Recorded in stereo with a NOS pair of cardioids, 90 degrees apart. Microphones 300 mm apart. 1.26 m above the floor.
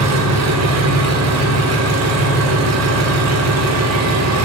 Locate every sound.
0.0 s an engine running: 70° right, 1.0 m